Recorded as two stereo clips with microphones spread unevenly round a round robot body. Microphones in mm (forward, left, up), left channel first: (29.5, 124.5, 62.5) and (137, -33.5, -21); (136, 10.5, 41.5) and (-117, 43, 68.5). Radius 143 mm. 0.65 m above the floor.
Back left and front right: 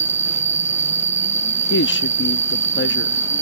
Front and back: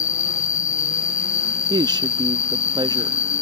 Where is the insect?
25° right.